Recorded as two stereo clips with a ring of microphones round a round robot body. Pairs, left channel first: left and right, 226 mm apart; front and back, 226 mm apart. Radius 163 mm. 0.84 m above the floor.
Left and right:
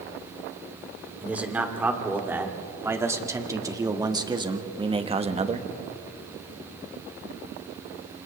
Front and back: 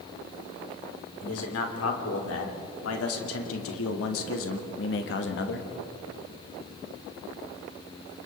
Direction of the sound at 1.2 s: 5° right.